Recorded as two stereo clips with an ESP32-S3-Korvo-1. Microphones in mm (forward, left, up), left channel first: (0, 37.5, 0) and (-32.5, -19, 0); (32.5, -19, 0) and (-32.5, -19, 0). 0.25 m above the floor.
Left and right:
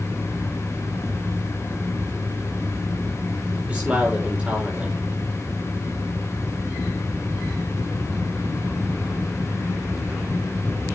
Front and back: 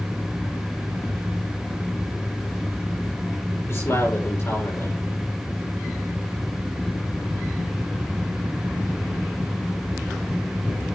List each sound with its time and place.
3.7 s a man speaking: 50° right, 7 m